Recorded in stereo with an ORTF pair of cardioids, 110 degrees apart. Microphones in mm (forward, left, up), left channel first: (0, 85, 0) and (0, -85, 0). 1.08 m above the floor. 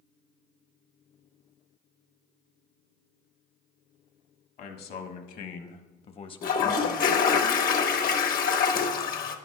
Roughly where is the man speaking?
Left.